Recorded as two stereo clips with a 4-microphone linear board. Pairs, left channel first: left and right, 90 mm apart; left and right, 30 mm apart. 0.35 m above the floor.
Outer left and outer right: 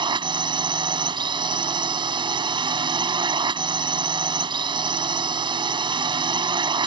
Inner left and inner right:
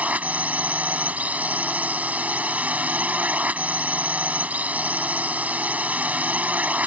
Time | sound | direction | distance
0.0 | a drone | 60° right (ahead or behind) | ?